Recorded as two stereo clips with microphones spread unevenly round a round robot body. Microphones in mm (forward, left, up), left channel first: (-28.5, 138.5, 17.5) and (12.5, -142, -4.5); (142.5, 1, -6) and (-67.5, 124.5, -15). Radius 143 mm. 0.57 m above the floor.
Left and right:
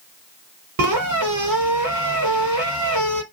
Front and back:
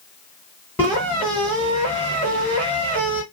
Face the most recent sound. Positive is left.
turn(degrees=-115)